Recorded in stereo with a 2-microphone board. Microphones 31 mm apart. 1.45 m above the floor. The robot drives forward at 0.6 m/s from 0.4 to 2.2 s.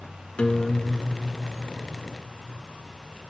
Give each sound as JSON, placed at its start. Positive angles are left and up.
{"t": 0.4, "sound": "a guitar", "side_deg": 35, "distance_m": 2.0}